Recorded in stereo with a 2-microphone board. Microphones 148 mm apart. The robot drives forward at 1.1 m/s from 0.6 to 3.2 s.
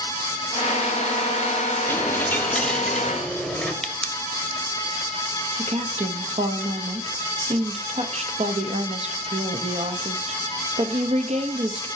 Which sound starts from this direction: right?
A woman speaking, at 5.6 s.